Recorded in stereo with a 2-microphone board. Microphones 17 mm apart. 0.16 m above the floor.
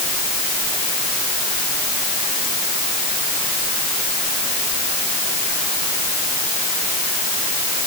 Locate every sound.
Only background noise.